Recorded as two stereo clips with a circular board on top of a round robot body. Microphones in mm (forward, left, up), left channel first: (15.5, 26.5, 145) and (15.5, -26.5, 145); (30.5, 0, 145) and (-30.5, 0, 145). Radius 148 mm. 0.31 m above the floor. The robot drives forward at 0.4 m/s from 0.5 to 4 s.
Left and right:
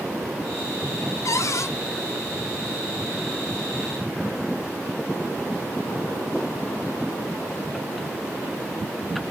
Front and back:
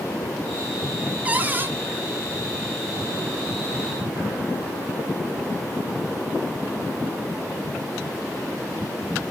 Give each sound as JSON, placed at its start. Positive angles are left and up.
{"t": 1.2, "sound": "a cupboard door", "azimuth_deg": 115, "distance_m": 0.9}